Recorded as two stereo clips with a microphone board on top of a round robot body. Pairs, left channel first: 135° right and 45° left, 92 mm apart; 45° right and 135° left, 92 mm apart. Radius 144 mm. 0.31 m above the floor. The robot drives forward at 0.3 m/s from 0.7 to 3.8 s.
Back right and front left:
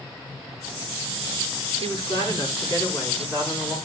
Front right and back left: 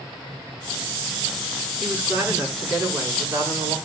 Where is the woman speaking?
160° right, 5 m; by 3.8 s 165° right, 5.5 m.